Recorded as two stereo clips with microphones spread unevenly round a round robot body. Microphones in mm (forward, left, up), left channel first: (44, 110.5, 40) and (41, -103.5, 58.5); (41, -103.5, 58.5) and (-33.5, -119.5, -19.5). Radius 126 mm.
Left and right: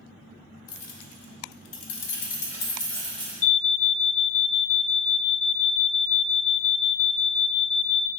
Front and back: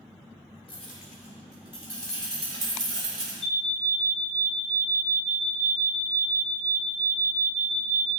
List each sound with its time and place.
0.7 s keys jangling: 75° left, 1.1 m; by 3.3 s 175° left, 1.2 m
3.4 s an alarm: 80° left, 0.5 m